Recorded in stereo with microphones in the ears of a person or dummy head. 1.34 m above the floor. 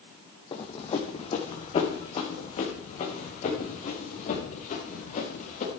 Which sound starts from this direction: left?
Running footsteps, at 0.5 s.